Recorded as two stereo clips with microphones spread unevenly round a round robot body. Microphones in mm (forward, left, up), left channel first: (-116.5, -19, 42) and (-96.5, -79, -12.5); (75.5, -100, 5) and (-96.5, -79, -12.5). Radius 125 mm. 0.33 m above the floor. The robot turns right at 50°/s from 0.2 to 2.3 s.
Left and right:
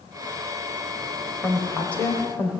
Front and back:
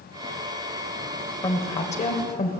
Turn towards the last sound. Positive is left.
turn(degrees=-5)